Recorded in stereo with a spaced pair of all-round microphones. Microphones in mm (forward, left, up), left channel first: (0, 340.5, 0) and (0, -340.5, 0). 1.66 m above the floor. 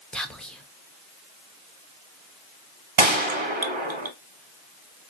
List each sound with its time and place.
0.1 s whispering: centre (ahead or behind), 0.9 m
3.0 s a gunshot: 45° right (ahead or behind), 0.7 m